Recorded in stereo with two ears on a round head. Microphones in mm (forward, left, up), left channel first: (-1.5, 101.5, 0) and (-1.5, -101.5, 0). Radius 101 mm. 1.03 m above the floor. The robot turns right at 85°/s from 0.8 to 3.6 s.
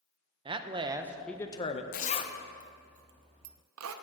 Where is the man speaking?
35° right, 0.5 m; by 1.8 s 50° left, 0.5 m.